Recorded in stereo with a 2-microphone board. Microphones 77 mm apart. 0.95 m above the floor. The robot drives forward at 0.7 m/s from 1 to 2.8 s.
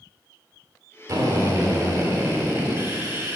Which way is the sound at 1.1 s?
60° right (ahead or behind).